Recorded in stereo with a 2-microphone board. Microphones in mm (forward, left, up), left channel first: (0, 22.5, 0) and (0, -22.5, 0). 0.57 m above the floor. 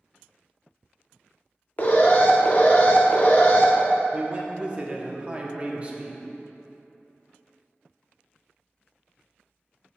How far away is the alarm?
About 0.8 m.